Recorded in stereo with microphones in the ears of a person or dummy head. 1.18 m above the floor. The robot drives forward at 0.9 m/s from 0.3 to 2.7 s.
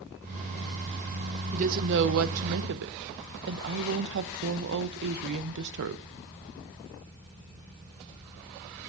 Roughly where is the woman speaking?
Right.